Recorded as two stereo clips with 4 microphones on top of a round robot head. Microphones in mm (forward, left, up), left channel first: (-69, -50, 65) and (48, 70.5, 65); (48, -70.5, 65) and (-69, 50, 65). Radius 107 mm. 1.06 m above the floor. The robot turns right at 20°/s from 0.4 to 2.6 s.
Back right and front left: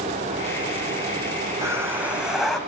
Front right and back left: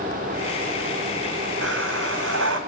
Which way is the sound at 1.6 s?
120° left.